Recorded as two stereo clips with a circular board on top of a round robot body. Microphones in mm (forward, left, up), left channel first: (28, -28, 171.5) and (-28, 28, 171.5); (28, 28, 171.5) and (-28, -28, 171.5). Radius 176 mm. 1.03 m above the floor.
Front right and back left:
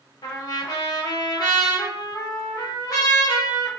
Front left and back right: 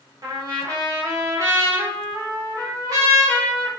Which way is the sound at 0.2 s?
85° right.